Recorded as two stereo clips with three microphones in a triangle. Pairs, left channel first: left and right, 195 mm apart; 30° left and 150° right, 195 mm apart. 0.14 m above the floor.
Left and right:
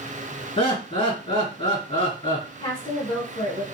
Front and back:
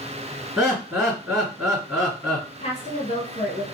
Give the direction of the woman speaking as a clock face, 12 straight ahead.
10 o'clock.